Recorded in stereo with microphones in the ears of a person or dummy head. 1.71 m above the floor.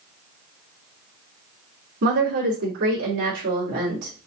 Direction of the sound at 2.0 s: 75° right (ahead or behind).